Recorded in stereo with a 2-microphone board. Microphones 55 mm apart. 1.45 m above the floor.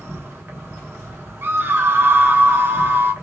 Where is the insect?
40° right (ahead or behind), 1.1 m.